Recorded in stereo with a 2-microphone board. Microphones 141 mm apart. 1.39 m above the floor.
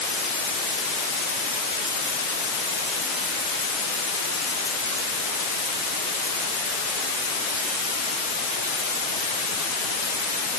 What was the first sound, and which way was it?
Only background noise.